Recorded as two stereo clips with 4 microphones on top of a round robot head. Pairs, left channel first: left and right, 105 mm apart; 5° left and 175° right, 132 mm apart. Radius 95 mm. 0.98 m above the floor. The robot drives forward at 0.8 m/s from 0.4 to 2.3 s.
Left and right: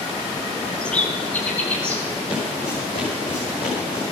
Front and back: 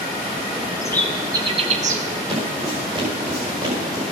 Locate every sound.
0.8 s a bird: 20° left, 0.6 m; by 2.0 s 175° left, 0.9 m
2.3 s footsteps: 140° left, 5.5 m; by 4.0 s 130° left, 5 m